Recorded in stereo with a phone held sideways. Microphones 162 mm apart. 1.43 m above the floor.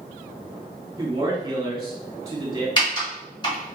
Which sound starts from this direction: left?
Typing on a keyboard, at 2.8 s.